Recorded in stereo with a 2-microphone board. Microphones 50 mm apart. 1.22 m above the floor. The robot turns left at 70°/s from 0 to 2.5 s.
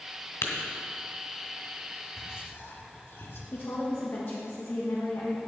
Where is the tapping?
70° left (ahead or behind), 2.5 m; by 0.5 s 65° left (ahead or behind), 2.5 m.